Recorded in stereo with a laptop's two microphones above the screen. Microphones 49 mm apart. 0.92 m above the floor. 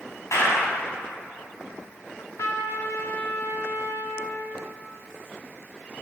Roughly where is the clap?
Left.